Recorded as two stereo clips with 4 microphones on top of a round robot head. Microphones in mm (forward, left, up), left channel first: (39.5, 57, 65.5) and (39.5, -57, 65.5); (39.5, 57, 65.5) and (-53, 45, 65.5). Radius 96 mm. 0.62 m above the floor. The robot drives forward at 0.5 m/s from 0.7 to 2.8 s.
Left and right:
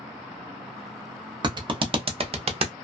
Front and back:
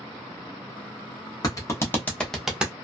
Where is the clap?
40° right, 0.8 m; by 2.7 s 100° right, 0.6 m.